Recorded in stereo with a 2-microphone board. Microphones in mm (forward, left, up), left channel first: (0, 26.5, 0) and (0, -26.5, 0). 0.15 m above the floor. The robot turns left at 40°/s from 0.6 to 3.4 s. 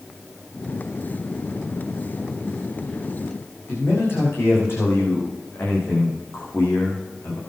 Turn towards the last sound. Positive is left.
turn(degrees=55)  # may be behind; listen again after turning